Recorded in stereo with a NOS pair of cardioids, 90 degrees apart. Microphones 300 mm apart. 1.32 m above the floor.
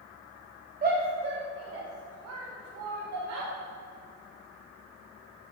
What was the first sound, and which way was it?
A shout, 30° right.